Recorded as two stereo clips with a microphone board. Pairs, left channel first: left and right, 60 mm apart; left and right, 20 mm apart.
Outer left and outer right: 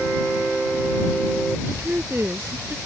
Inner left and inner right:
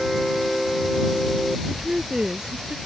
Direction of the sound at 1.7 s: 30° right (ahead or behind).